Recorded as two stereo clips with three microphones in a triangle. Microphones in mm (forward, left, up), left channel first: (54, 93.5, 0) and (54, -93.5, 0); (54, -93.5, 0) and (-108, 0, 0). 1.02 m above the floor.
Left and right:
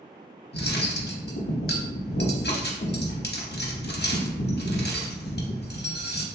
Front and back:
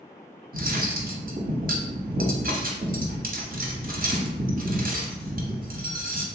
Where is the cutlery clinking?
110° left, 0.7 m.